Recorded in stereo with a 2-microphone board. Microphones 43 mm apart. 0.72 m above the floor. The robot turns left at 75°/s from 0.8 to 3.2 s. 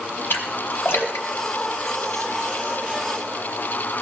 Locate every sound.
0.3 s a splash: 65° left (ahead or behind), 2 m; by 2.2 s 10° left (ahead or behind), 2 m